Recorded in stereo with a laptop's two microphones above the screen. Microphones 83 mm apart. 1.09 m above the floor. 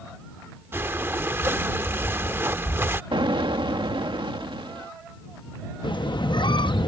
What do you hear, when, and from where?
0.7 s breathing: 30° right (ahead or behind)
3.1 s an explosion: 75° right (ahead or behind)
5.8 s a squeak: 65° left (ahead or behind)